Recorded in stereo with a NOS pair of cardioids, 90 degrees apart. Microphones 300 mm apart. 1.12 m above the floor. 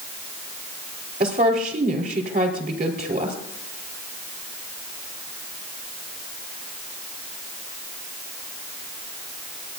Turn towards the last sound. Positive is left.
turn(degrees=-30)